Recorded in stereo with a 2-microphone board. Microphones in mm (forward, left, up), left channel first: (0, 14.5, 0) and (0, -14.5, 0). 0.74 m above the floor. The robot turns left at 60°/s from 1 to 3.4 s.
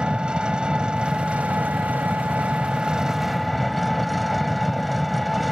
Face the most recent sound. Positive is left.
turn(degrees=180)